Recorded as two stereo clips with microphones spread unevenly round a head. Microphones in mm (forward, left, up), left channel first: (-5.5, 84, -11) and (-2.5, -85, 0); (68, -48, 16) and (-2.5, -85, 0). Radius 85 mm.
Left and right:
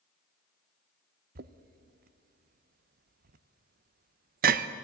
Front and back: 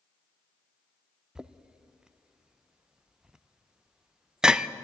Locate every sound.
1.4 s knocking: 85° right, 0.5 m